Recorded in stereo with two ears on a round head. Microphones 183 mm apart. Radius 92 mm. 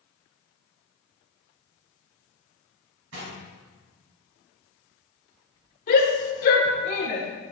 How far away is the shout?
About 1.7 m.